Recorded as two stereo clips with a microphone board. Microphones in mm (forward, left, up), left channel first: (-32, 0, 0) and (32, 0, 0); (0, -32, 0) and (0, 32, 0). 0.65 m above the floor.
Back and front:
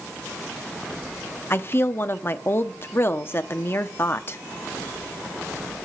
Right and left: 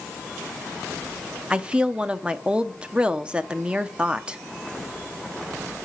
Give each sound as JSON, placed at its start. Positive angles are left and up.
{"t": 1.5, "sound": "a woman speaking", "azimuth_deg": 155, "distance_m": 0.7}